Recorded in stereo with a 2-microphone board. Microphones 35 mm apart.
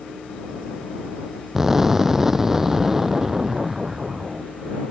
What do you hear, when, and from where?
1.6 s an explosion: 10° right (ahead or behind)